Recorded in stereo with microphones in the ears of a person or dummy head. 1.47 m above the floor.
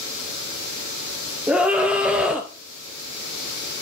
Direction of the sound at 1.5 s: 5° right (ahead or behind).